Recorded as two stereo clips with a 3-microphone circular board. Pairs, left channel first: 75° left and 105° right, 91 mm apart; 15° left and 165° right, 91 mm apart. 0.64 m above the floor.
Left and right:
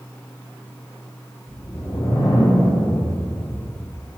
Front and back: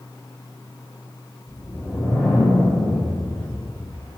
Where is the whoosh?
100° left, 3 m.